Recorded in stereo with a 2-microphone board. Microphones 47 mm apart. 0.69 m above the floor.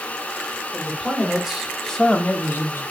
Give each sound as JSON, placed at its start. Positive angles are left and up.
{"t": 0.7, "sound": "a man speaking", "side_deg": -20, "distance_m": 2.5}